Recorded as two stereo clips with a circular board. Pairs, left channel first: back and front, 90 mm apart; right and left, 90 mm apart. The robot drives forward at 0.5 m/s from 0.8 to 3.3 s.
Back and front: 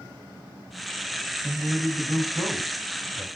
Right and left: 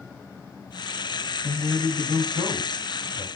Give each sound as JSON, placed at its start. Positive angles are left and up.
{"t": 1.4, "sound": "a man speaking", "azimuth_deg": 70, "distance_m": 1.7}